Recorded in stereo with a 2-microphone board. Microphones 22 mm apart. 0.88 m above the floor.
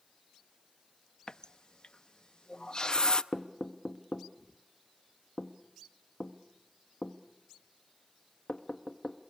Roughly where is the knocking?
Left.